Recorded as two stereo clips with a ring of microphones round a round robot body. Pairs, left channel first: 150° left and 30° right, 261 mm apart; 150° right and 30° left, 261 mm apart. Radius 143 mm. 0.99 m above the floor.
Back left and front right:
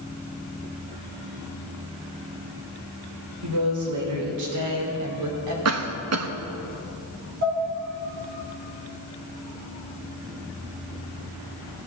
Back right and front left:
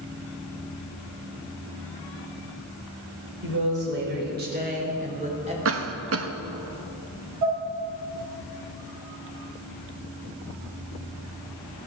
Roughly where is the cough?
Ahead.